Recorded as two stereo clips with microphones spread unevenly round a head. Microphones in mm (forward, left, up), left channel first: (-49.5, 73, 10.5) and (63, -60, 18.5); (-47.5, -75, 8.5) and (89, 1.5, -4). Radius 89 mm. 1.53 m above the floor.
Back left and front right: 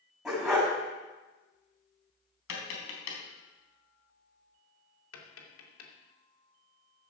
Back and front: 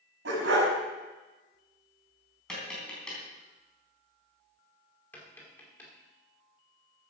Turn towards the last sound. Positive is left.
turn(degrees=130)